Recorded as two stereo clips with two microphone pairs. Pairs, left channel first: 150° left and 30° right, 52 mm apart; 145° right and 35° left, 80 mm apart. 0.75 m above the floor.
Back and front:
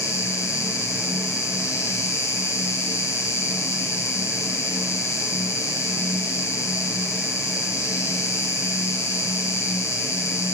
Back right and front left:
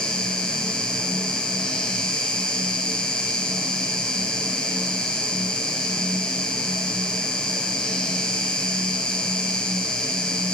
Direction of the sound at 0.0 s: 135° left.